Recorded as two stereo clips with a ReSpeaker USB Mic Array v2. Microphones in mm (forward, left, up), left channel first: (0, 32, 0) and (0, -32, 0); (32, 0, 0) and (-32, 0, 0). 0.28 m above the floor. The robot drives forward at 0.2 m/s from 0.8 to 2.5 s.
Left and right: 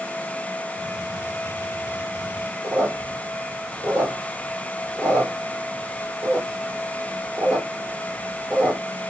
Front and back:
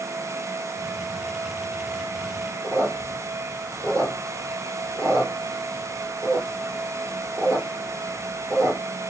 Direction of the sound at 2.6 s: 145° right.